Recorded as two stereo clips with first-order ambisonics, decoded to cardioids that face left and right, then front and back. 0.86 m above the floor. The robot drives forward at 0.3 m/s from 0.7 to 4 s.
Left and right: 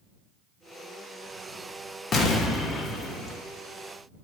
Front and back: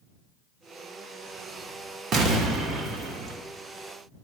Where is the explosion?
140° left, 1.2 m; by 3.4 s 150° left, 1.4 m.